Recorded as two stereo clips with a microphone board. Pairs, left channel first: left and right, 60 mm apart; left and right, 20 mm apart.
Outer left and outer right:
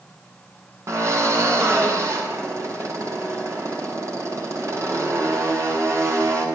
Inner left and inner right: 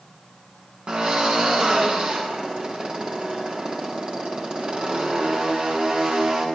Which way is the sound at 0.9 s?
50° right (ahead or behind).